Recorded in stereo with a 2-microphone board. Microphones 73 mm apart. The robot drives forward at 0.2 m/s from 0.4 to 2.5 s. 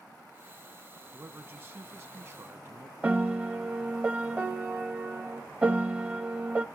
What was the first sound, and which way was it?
A man speaking, 30° right (ahead or behind).